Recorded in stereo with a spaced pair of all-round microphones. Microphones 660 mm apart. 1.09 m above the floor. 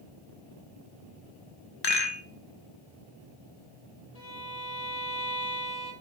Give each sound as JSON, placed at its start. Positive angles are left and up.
{"t": 1.8, "sound": "a rattle", "side_deg": 40, "distance_m": 0.7}
{"t": 4.2, "sound": "a violin", "side_deg": 65, "distance_m": 1.4}